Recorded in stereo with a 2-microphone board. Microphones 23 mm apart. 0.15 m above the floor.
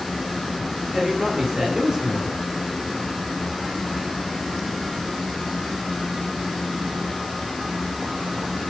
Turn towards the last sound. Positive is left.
turn(degrees=-25)  # may be behind; listen again after turning